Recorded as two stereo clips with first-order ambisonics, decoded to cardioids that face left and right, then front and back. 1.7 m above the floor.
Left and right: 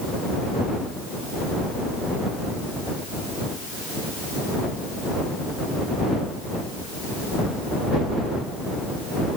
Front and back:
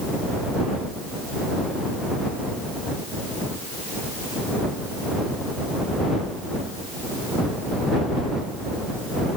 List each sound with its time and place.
Only background noise.